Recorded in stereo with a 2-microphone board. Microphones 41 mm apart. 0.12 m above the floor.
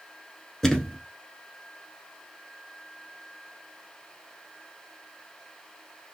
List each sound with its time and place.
0.6 s a thud: 15° left (ahead or behind), 0.7 m